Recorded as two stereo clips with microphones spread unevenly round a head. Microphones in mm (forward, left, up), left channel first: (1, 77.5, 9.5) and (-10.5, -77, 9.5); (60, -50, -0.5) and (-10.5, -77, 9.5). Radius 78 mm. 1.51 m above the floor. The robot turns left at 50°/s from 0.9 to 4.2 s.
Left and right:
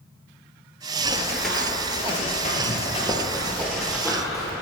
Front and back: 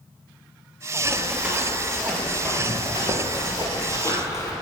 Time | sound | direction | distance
1.1 | running footsteps | 150° right | 1.7 m